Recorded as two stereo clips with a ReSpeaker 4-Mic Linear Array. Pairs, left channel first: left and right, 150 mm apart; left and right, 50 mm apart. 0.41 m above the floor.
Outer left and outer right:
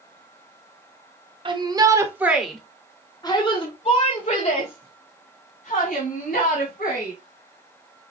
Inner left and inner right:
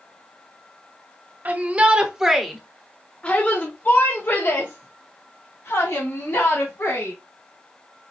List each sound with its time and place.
1.4 s a shout: 35° right (ahead or behind), 1.1 m; by 7.1 s 70° left (ahead or behind), 3 m